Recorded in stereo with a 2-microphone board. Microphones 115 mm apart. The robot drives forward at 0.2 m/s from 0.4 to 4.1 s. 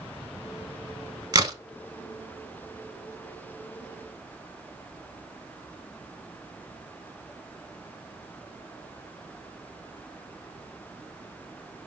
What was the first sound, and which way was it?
A crack, 35° right (ahead or behind).